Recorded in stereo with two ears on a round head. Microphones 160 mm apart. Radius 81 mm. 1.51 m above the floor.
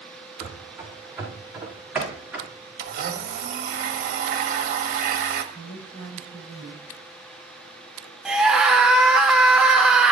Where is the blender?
50° right (ahead or behind), 1.7 m.